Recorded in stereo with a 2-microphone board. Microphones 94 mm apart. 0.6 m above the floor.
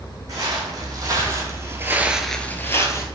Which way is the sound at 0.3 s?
40° right (ahead or behind).